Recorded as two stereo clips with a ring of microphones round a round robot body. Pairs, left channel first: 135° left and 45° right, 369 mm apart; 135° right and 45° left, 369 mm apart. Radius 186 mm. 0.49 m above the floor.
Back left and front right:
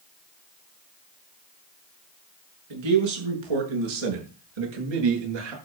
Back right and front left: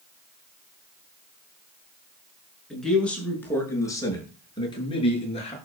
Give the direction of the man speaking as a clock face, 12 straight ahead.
2 o'clock.